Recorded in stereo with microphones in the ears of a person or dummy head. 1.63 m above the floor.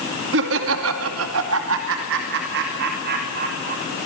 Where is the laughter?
65° right (ahead or behind), 2 m; by 3.8 s 50° right (ahead or behind), 3.5 m.